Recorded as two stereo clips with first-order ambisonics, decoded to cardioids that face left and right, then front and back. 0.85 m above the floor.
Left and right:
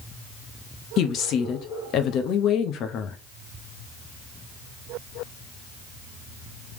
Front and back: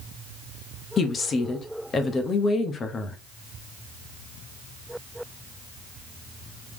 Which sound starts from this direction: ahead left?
A woman speaking, at 1.0 s.